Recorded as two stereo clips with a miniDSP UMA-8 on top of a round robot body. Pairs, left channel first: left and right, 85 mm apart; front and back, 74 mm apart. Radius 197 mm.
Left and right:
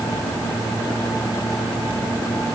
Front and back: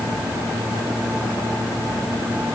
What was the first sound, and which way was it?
Only background noise.